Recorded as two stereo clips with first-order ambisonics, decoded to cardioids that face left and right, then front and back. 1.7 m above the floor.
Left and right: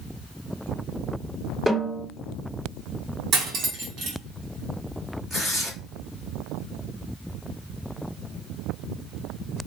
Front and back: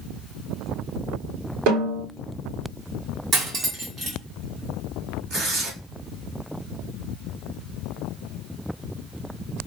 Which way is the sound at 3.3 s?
130° right.